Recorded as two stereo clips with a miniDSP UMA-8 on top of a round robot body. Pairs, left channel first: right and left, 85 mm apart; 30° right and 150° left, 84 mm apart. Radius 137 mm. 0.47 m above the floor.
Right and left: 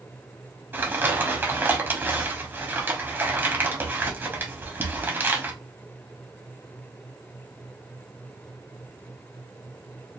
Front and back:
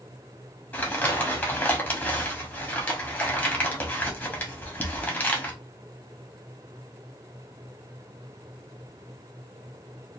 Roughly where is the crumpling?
Ahead left.